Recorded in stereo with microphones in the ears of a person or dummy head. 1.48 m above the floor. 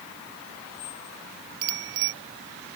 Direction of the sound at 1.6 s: 65° right (ahead or behind).